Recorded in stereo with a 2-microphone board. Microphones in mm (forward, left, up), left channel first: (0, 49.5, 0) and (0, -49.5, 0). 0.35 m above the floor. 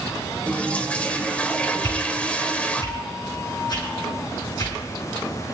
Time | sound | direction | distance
0.5 | a toilet flushing | 15° left (ahead or behind) | 0.9 m
1.8 | a whoosh | 50° left (ahead or behind) | 6.5 m